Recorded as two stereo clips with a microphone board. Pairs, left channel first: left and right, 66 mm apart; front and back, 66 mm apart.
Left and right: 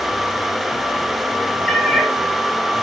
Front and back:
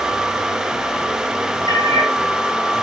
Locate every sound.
1.7 s a cat meowing: 10° left, 4.5 m